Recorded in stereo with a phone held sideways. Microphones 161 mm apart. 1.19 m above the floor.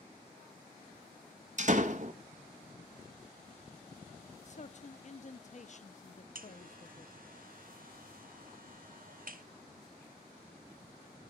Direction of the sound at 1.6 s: 50° right (ahead or behind).